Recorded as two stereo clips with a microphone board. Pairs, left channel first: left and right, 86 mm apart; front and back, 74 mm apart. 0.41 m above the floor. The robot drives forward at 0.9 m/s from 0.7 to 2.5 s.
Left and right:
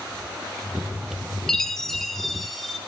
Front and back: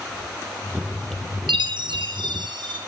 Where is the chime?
175° left, 0.9 m.